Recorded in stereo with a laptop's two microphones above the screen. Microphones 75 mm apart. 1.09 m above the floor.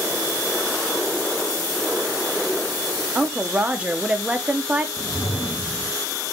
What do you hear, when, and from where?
3.1 s a woman speaking: 15° right (ahead or behind), 0.5 m
5.0 s a whoosh: 40° left (ahead or behind), 0.7 m